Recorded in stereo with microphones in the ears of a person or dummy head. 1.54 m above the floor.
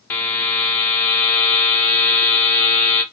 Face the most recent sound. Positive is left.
turn(degrees=10)  # may be behind; listen again after turning